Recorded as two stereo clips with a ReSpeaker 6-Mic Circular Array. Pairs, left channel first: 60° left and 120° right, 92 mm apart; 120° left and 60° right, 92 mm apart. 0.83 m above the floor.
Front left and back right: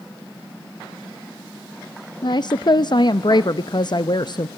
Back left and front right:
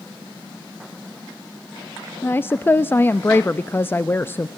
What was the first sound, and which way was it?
A woman speaking, 60° left.